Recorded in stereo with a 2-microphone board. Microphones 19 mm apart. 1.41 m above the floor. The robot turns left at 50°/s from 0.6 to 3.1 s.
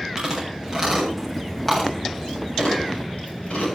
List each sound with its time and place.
0.2 s chewing: 30° right (ahead or behind), 8 m; by 3.8 s 85° left, 8 m